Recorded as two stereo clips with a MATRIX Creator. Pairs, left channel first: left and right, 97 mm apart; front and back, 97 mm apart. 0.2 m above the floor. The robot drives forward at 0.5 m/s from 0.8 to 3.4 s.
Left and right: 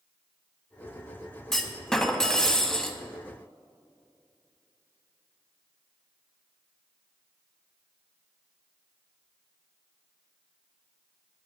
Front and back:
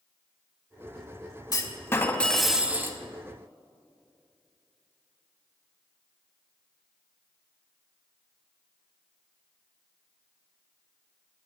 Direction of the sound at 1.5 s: 5° left.